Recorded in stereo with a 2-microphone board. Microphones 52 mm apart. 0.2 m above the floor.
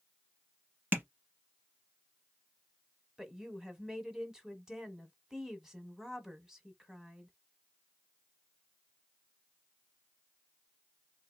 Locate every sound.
0.9 s tapping: 40° right (ahead or behind), 1.3 m
3.2 s a woman speaking: 10° right (ahead or behind), 1.2 m